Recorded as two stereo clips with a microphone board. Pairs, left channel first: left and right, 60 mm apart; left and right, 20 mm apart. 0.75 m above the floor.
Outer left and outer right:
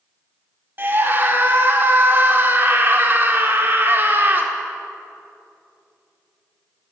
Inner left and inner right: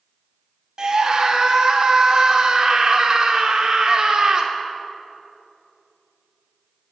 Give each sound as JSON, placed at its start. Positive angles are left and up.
{"t": 0.8, "sound": "a scream", "side_deg": -35, "distance_m": 1.7}